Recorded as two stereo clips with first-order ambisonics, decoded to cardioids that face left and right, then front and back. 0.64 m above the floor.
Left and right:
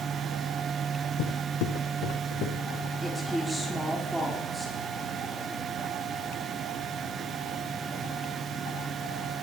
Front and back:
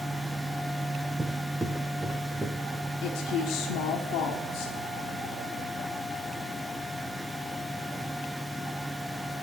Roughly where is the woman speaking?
Ahead.